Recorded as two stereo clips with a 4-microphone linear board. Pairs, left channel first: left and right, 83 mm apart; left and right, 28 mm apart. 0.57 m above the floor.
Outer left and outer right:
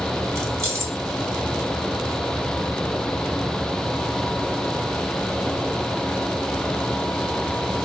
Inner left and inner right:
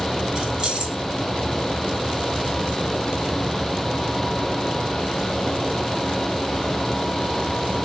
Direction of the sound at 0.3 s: 35° right (ahead or behind).